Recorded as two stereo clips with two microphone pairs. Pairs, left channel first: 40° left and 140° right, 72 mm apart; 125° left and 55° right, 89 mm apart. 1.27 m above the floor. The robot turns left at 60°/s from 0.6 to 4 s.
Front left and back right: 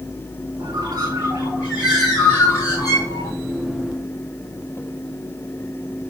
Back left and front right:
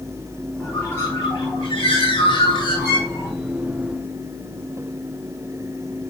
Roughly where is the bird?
Behind right.